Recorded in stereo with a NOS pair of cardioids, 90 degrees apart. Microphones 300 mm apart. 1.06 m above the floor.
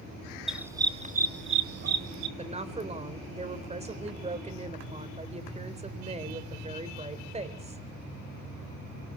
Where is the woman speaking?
20° right, 3.5 m.